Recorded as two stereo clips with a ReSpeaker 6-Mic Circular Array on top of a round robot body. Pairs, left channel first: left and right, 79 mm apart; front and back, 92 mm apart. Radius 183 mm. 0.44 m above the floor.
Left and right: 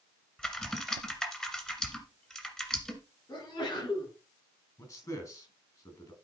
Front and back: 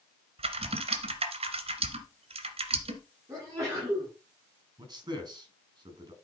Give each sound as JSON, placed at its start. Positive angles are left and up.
{"t": 0.4, "sound": "typing on a keyboard", "azimuth_deg": 170, "distance_m": 1.7}
{"t": 3.3, "sound": "a sneeze", "azimuth_deg": 125, "distance_m": 6.5}
{"t": 4.8, "sound": "a man speaking", "azimuth_deg": 135, "distance_m": 6.0}